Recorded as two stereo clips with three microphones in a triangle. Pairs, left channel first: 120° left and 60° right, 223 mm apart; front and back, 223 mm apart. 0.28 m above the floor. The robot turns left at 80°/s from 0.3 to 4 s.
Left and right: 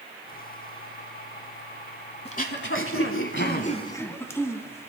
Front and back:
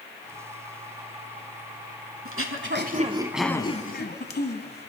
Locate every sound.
2.2 s throat clearing: straight behind, 1.0 m; by 4.9 s 40° left, 1.0 m